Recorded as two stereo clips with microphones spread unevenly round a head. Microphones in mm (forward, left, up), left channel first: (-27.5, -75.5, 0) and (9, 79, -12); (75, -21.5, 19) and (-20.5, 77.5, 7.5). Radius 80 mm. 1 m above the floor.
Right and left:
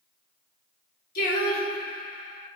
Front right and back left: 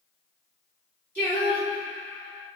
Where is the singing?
120° right, 1.0 m.